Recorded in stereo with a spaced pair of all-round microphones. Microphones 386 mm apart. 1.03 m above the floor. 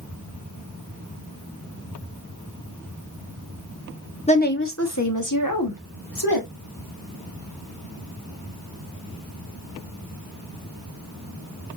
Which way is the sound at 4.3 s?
15° left (ahead or behind).